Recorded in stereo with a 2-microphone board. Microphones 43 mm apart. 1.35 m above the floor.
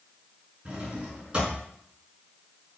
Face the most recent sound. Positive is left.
turn(degrees=-25)  # may be behind; listen again after turning